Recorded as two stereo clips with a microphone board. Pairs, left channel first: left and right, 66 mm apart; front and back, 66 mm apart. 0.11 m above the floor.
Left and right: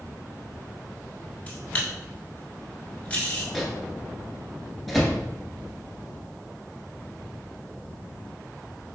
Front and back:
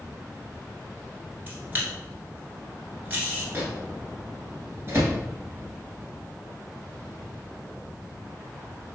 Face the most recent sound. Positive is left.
turn(degrees=175)